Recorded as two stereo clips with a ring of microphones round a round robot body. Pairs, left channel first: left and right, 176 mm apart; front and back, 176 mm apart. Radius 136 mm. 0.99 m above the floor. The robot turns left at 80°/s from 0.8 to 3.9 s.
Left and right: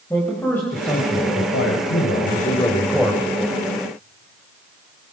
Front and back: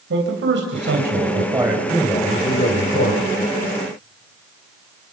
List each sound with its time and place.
0.1 s a man speaking: 170° left, 4.5 m; by 3.2 s 20° right, 4.5 m